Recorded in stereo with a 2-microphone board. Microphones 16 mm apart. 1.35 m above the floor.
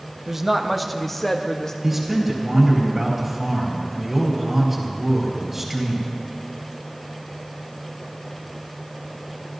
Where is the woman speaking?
20° right (ahead or behind), 1.0 m; by 1.7 s 35° left (ahead or behind), 1.4 m.